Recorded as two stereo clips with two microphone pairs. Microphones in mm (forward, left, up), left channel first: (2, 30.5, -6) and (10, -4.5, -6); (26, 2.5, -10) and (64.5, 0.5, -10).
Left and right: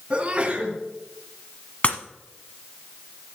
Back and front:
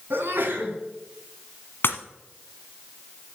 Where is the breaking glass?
155° left, 1.0 m.